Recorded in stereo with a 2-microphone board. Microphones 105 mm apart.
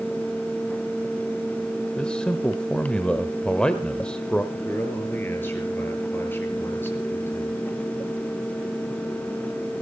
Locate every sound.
2.0 s a man speaking: 10° left (ahead or behind), 1.1 m
4.5 s a man speaking: 20° left (ahead or behind), 5.5 m